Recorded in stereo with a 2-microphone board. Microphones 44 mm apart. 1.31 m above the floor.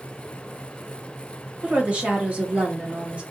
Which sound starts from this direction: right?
A woman speaking, at 1.6 s.